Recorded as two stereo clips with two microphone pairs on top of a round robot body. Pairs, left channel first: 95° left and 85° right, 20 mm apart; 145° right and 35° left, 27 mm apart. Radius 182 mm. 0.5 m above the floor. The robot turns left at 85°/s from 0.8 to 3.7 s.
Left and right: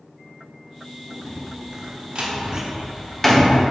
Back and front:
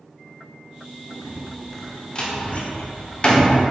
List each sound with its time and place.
1.2 s a door slam: 20° right, 1.0 m; by 3.6 s 140° left, 1.0 m